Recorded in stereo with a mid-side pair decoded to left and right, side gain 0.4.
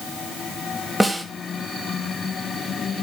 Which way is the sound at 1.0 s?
5° right.